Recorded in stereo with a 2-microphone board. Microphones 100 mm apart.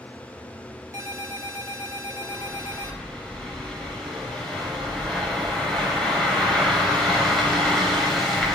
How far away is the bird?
About 3.5 m.